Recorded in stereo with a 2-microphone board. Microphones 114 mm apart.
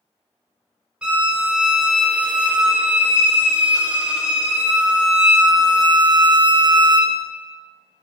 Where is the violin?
10° right (ahead or behind), 0.5 m.